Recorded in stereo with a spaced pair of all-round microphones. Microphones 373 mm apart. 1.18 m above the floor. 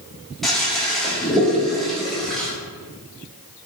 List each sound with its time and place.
0.4 s a toilet flushing: centre (ahead or behind), 0.5 m